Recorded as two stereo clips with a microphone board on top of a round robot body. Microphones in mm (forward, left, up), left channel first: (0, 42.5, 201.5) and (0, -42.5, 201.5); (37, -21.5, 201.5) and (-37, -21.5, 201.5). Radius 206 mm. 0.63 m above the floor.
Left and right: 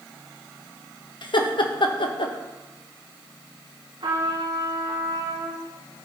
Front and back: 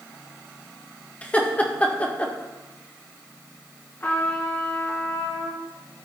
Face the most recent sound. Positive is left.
turn(degrees=-60)